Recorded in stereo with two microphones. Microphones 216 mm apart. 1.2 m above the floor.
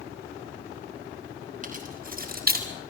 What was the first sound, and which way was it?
Keys jangling, 35° right (ahead or behind).